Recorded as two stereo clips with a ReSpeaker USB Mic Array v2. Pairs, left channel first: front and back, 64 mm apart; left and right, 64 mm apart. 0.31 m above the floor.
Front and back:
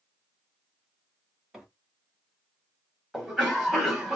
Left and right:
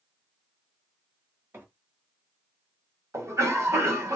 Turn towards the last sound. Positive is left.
turn(degrees=-100)